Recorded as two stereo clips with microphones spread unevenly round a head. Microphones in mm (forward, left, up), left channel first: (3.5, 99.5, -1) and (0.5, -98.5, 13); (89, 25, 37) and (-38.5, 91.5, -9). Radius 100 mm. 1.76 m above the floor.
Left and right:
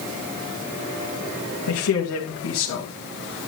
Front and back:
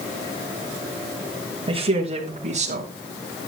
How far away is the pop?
I don't hear a pop.